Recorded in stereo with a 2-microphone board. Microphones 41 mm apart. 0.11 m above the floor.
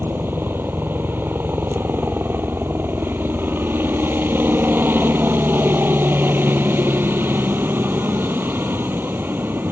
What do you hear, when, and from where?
0.0 s a helicopter: 60° right (ahead or behind)